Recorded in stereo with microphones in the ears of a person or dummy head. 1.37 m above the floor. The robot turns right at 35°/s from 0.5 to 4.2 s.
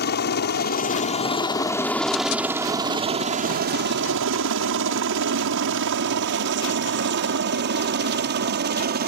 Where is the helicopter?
55° left (ahead or behind); by 9.1 s 40° right (ahead or behind).